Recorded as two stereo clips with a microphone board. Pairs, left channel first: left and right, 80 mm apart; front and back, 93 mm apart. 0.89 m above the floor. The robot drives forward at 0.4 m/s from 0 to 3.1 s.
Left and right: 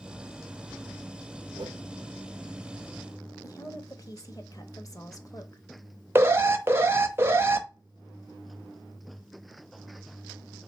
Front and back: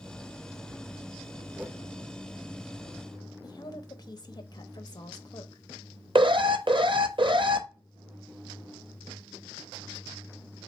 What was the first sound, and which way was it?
A whoosh, 105° right.